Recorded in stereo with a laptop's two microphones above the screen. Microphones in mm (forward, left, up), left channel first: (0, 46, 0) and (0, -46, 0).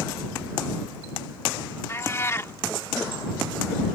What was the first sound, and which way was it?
A cat meowing, 30° left (ahead or behind).